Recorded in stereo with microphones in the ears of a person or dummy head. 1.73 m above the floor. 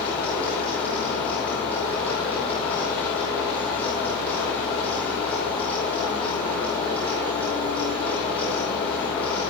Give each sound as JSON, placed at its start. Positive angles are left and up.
{"t": 0.0, "sound": "a fan", "side_deg": 10, "distance_m": 5.0}